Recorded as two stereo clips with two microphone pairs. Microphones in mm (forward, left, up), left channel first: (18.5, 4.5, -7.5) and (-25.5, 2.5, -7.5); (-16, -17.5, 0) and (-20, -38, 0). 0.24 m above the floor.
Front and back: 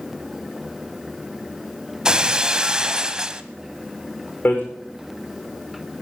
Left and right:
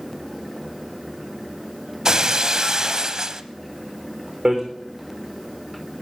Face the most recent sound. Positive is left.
turn(degrees=-40)